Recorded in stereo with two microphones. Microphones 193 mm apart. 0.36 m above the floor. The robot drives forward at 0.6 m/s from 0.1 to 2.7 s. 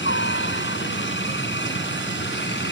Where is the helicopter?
70° left (ahead or behind).